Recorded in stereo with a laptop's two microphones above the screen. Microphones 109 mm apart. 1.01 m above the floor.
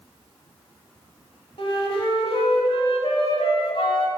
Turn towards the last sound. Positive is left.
turn(degrees=55)  # may be behind; listen again after turning